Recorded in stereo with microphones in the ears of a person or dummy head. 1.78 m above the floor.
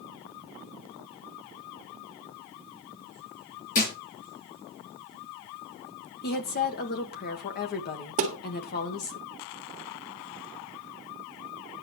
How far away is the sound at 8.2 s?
About 1.7 m.